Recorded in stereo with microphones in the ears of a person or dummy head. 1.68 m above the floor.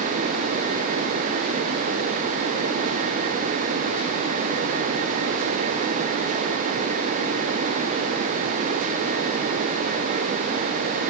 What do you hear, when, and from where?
Only background noise.